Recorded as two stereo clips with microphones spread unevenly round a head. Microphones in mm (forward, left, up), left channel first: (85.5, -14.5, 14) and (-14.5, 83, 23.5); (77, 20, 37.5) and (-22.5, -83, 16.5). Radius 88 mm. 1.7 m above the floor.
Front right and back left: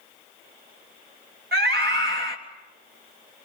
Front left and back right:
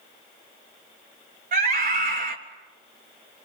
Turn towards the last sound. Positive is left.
turn(degrees=175)